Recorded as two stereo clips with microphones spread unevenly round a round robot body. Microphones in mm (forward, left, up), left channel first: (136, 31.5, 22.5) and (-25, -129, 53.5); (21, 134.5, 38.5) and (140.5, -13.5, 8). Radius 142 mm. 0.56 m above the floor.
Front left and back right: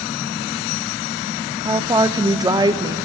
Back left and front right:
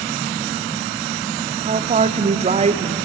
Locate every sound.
1.6 s a woman speaking: 60° right, 0.8 m